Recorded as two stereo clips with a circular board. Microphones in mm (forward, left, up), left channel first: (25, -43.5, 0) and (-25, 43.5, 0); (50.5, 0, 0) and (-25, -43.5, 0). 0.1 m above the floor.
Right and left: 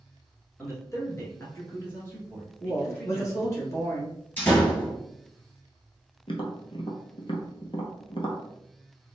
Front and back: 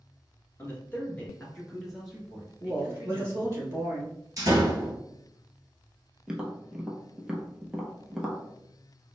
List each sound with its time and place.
0.6 s a man speaking: 20° right, 1.6 m; by 3.6 s 125° right, 1.5 m
2.6 s a woman speaking: 105° right, 1.6 m
4.4 s a door slam: 120° right, 1.6 m
6.3 s tapping: 70° right, 0.7 m